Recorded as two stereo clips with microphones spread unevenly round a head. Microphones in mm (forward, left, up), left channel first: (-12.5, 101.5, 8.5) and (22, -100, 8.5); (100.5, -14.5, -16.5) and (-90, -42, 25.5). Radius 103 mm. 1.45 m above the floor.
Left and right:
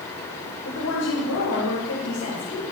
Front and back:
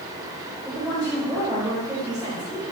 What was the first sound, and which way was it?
A woman speaking, 100° left.